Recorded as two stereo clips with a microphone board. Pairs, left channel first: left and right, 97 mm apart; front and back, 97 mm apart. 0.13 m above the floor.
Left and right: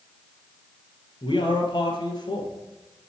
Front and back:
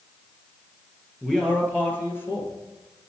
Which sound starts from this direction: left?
A man speaking, at 1.2 s.